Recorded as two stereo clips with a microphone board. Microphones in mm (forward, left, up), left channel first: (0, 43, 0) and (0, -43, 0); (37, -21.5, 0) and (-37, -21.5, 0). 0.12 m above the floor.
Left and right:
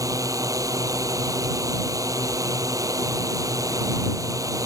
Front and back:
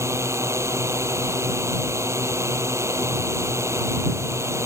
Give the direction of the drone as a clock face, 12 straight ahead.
4 o'clock.